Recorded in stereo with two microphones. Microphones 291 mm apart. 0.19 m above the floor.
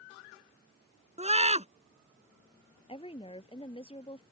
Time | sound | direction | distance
1.2 | a scream | 20° right (ahead or behind) | ?
2.9 | a woman speaking | 20° left (ahead or behind) | ?